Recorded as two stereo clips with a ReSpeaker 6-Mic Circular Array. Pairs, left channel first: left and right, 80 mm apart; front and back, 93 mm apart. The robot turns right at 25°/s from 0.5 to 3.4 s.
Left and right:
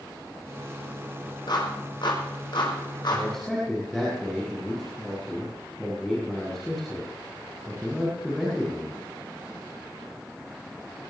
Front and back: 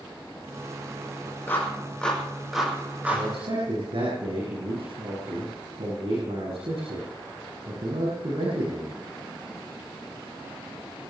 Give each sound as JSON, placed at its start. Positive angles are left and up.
{"t": 1.5, "sound": "a clap", "azimuth_deg": 65, "distance_m": 5.5}
{"t": 3.1, "sound": "a man speaking", "azimuth_deg": 170, "distance_m": 7.5}